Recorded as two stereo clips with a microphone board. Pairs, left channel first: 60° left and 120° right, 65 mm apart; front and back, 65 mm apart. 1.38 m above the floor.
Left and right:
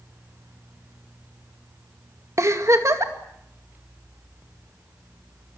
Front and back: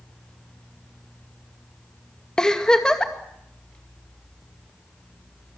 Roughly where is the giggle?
Right.